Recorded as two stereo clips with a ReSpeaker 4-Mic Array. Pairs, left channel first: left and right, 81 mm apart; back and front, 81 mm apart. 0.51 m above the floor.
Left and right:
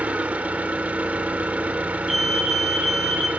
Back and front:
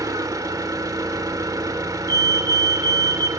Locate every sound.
0.0 s an engine running: 25° right, 1.6 m
2.1 s a fire alarm: straight ahead, 2.5 m